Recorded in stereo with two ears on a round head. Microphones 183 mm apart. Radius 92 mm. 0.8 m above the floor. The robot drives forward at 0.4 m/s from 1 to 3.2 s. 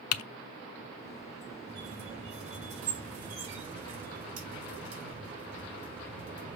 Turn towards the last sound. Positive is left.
turn(degrees=-35)  # may be behind; listen again after turning